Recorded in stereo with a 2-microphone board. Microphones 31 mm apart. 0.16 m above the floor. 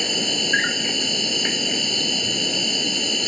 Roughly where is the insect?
Centre.